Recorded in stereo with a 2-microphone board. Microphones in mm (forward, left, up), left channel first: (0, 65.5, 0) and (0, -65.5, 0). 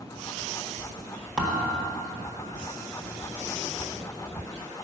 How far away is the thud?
About 1.6 m.